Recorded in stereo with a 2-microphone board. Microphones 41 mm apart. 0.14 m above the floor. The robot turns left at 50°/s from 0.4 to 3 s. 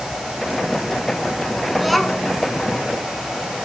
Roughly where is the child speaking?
Centre.